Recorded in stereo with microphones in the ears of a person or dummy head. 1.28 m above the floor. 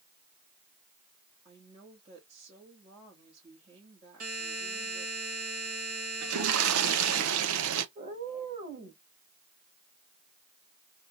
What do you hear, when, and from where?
1.4 s a woman speaking: 30° right (ahead or behind), 1.9 m
4.2 s a buzzer: 40° right (ahead or behind), 1.6 m
6.2 s a toilet flushing: 70° right (ahead or behind), 0.7 m
8.0 s a cat meowing: 25° right (ahead or behind), 1.8 m